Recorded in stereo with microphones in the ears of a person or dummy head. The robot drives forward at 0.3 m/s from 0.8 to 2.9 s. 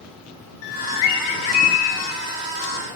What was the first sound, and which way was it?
A bird, 75° left (ahead or behind).